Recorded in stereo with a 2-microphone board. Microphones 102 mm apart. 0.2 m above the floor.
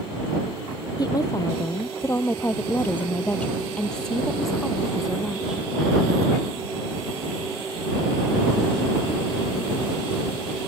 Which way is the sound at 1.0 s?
40° left (ahead or behind).